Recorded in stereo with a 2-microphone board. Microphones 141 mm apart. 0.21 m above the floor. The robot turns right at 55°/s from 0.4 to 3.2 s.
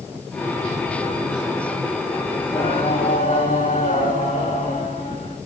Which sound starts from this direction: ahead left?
Singing, at 2.4 s.